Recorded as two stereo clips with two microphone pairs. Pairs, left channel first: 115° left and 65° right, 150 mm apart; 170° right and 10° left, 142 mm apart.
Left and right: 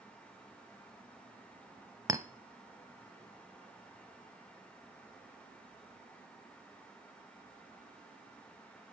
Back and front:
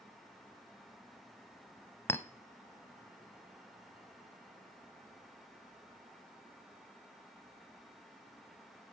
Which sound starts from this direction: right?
A clink, at 2.1 s.